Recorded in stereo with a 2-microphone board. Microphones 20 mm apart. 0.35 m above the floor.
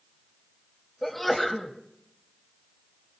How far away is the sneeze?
About 1.8 m.